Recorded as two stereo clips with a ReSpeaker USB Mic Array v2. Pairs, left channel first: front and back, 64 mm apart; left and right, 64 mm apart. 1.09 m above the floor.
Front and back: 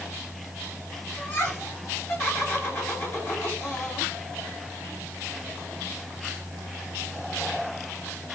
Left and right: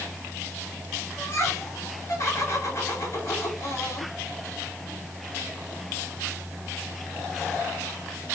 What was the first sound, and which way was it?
Laughter, 45° left.